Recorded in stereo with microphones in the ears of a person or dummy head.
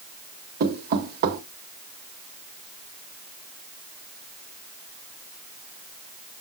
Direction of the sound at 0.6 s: 55° right (ahead or behind).